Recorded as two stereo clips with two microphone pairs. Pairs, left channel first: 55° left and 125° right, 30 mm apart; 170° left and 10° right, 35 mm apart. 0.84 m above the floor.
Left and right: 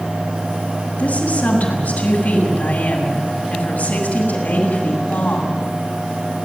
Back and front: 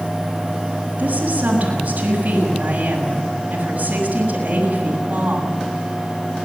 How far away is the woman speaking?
About 6.5 m.